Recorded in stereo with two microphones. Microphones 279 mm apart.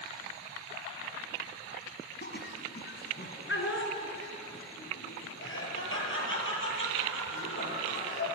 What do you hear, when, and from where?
2.2 s laughter: 35° left (ahead or behind), 1.9 m; by 8.3 s 45° left (ahead or behind), 8 m